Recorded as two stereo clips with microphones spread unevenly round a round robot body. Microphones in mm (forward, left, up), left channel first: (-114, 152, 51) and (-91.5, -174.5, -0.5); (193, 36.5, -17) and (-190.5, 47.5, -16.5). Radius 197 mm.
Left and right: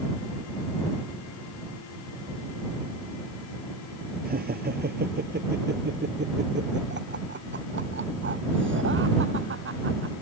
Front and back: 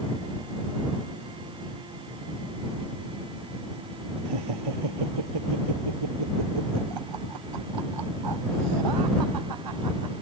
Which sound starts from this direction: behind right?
Laughter, at 4.2 s.